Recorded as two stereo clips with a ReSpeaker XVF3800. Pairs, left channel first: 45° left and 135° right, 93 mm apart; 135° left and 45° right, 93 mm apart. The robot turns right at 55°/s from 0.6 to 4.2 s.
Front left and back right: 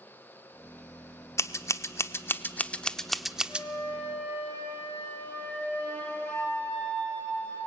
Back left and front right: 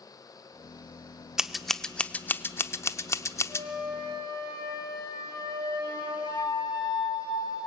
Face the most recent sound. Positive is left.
turn(degrees=120)